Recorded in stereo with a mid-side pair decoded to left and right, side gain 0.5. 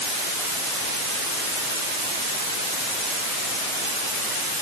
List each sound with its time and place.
Only background noise.